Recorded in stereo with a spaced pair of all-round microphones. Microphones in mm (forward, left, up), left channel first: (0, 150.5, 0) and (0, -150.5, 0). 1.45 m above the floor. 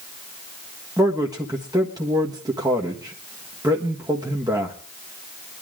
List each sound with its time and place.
1.0 s a man speaking: 10° right (ahead or behind), 1.5 m